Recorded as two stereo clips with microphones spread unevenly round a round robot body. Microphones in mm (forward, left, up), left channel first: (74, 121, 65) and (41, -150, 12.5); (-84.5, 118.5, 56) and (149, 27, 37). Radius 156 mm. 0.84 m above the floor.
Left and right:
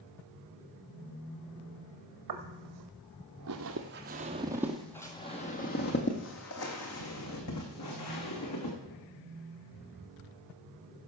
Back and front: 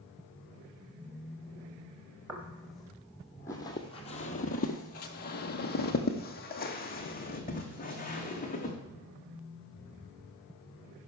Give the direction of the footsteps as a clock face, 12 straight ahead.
4 o'clock.